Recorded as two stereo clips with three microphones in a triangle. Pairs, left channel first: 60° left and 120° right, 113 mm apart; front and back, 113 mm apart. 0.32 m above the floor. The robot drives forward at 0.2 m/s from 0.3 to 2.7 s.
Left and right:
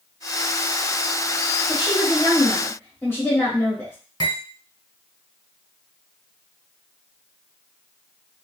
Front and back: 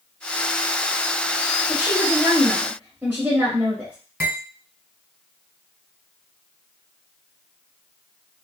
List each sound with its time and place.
1.7 s a woman speaking: 100° left, 1.1 m; by 4.0 s 115° left, 1.2 m
4.2 s cutlery clinking: 115° left, 1.8 m